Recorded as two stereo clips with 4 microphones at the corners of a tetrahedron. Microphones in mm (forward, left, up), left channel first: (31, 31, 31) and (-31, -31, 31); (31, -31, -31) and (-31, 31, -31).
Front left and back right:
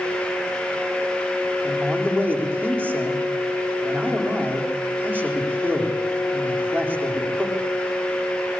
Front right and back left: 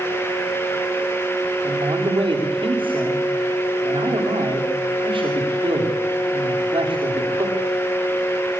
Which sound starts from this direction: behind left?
A man speaking, at 1.6 s.